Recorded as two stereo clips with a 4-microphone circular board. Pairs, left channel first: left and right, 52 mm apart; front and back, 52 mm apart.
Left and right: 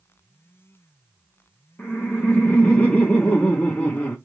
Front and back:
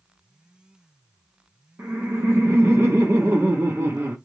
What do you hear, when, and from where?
1.8 s laughter: 150° left, 0.8 m